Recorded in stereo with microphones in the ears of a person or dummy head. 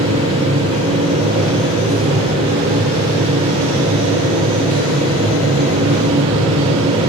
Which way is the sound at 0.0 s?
30° right (ahead or behind).